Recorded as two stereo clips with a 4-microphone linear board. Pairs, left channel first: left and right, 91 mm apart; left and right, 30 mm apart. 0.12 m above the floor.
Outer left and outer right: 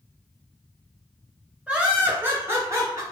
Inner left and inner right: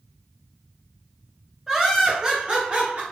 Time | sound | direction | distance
1.7 | laughter | 10° right (ahead or behind) | 1.8 m